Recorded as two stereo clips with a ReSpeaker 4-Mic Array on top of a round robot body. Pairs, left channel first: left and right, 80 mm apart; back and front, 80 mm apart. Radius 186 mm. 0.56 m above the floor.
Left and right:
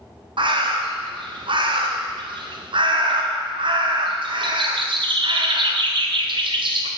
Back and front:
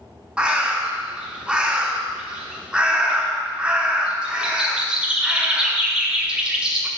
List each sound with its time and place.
0.4 s a bird: 80° right, 1.0 m